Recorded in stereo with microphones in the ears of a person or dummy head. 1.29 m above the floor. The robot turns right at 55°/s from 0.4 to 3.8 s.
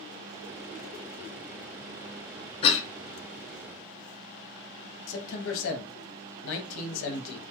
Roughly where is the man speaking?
Left.